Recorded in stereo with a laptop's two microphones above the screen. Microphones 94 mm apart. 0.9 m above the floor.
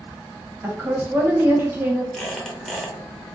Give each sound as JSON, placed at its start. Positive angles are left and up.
{"t": 0.6, "sound": "a woman speaking", "side_deg": -20, "distance_m": 0.8}
{"t": 2.1, "sound": "a squeak", "side_deg": 5, "distance_m": 0.7}